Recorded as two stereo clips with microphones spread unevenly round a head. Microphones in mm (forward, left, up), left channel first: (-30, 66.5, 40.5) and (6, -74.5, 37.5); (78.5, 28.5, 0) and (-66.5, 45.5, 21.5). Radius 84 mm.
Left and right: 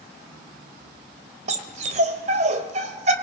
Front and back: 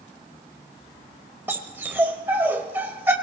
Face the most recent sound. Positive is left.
turn(degrees=-115)